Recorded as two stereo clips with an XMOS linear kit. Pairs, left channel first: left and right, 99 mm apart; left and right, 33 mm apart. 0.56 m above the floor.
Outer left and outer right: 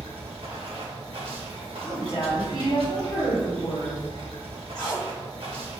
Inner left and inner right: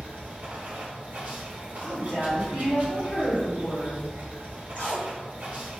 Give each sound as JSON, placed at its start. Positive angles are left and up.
{"t": 0.0, "sound": "running water", "side_deg": -65, "distance_m": 1.0}
{"t": 1.8, "sound": "a woman speaking", "side_deg": 60, "distance_m": 1.6}
{"t": 4.8, "sound": "tape being pulled", "side_deg": 40, "distance_m": 1.7}